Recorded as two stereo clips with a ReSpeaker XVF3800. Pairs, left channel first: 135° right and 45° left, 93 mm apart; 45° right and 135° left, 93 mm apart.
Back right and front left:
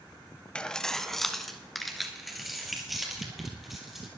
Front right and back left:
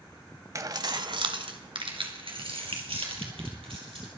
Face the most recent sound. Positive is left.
turn(degrees=135)